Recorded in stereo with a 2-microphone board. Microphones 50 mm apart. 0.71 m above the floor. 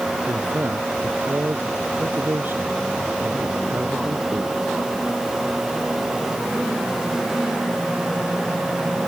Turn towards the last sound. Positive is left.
turn(degrees=-40)  # may be behind; listen again after turning